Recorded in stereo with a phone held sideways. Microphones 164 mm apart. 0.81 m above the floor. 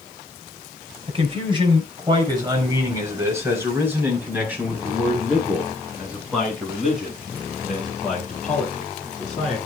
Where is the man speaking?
35° right (ahead or behind), 4.5 m; by 9.6 s 5° left (ahead or behind), 12.5 m.